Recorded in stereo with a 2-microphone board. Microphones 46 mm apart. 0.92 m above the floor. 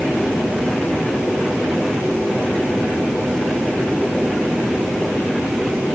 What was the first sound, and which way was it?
Only background noise.